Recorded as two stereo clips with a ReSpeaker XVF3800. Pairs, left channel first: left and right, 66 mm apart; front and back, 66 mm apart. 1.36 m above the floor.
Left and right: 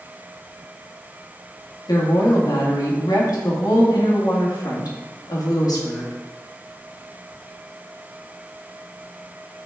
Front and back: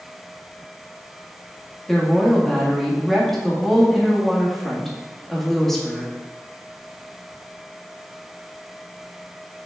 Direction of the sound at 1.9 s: 85° left.